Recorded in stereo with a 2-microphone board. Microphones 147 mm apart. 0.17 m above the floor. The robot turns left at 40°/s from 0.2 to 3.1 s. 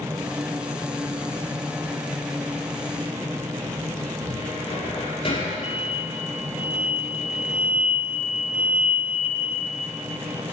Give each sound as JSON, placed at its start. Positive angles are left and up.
{"t": 4.3, "sound": "a cupboard door", "side_deg": 40, "distance_m": 5.5}
{"t": 5.6, "sound": "an explosion", "side_deg": -10, "distance_m": 1.9}